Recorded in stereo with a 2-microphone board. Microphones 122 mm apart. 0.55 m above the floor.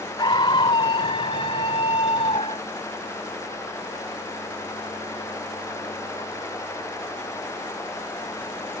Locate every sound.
0.2 s a scream: 45° left (ahead or behind); by 2.7 s 55° left (ahead or behind)